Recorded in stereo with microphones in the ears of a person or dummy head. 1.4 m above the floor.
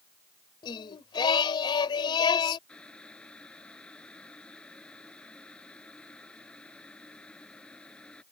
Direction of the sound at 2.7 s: 10° left (ahead or behind).